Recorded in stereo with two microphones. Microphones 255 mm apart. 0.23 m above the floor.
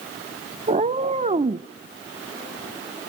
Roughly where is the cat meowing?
Right.